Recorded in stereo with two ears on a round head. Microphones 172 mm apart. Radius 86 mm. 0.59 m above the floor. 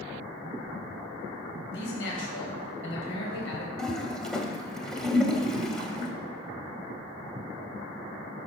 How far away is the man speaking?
About 4 m.